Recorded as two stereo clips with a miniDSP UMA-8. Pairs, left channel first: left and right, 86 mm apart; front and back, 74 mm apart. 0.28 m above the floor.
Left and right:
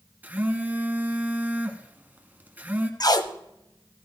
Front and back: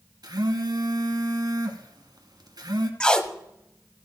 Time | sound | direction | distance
0.2 | a phone buzzing | 160° right | 1.3 m
3.0 | tape being pulled | 75° left | 0.7 m